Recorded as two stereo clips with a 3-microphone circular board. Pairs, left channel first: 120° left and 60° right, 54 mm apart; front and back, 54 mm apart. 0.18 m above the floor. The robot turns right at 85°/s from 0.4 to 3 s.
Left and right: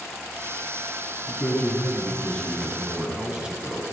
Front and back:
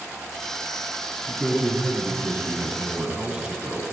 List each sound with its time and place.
1.3 s a man speaking: 95° left, 1.1 m; by 3.8 s 120° right, 1.1 m